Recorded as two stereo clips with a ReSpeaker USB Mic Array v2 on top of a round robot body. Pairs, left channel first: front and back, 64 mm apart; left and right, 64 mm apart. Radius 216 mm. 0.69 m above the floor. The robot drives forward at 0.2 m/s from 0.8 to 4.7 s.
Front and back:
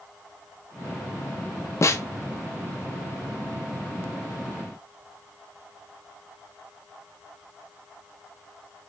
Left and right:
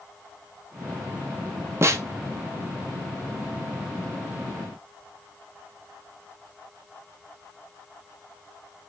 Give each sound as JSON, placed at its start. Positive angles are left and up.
{"t": 1.8, "sound": "a snare drum", "azimuth_deg": -45, "distance_m": 0.5}